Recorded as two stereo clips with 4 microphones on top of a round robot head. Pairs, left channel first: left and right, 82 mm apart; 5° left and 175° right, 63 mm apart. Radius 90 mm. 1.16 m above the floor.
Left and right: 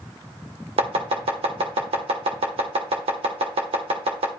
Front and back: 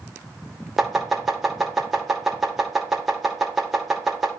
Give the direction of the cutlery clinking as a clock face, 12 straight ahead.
No cutlery clinking in this recording.